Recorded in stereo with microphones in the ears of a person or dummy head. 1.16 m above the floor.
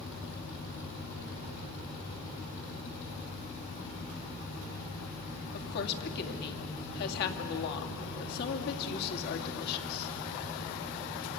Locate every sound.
5.5 s a woman speaking: 50° left (ahead or behind), 2.5 m